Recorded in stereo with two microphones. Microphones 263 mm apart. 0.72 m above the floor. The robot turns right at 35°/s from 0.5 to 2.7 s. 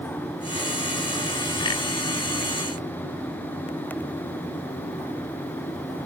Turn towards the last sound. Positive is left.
No sound to turn to.